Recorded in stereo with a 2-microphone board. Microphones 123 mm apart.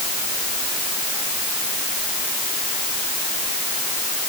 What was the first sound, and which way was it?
Only background noise.